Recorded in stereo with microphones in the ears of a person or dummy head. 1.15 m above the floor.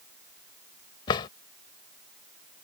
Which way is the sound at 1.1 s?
25° left (ahead or behind).